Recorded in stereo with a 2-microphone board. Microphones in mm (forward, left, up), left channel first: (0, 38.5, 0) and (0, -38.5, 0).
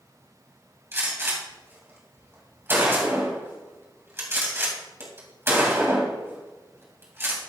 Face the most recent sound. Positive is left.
turn(degrees=-30)  # may be behind; listen again after turning